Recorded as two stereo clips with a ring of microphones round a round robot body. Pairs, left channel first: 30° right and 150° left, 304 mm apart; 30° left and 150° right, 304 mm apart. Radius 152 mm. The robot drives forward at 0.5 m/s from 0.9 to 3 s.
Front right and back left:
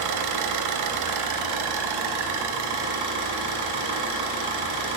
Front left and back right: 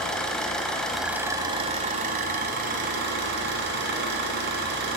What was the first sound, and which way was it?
An engine running, 120° left.